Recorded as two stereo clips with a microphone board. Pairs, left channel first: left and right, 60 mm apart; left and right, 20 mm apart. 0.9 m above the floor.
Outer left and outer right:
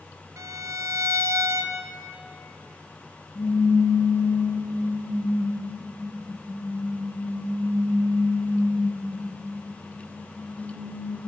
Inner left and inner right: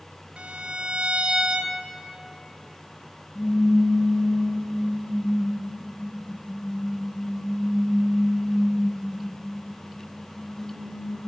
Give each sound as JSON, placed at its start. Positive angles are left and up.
{"t": 0.4, "sound": "a violin", "side_deg": -60, "distance_m": 0.6}
{"t": 3.4, "sound": "a pop", "side_deg": 50, "distance_m": 4.5}